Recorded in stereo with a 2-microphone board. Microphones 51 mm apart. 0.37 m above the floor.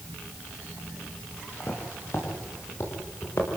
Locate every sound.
1.6 s footsteps: 55° left (ahead or behind), 9 m; by 3.6 s 65° left (ahead or behind), 10 m